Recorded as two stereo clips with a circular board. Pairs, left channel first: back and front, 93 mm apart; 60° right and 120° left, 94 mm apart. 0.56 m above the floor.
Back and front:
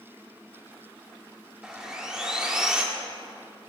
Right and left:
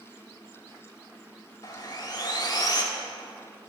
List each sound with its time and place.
1.6 s sawing: 80° right, 1.4 m